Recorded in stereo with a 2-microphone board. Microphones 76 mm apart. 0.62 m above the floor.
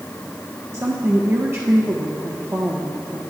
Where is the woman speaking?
35° right (ahead or behind), 1.0 m.